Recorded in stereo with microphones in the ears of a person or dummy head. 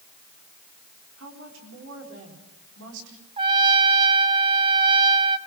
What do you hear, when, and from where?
1.2 s a woman speaking: 75° right (ahead or behind), 4.5 m
3.4 s a trumpet: 25° right (ahead or behind), 0.9 m